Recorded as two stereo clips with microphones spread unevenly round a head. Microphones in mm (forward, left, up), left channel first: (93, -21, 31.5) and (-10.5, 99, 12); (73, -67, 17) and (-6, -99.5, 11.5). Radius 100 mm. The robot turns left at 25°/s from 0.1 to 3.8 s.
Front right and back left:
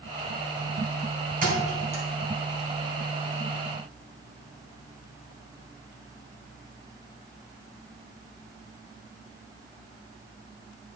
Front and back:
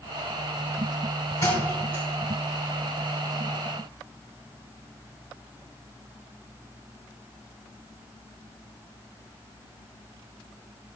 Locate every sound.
1.4 s a thud: 95° left, 3 m; by 2.0 s 80° left, 3 m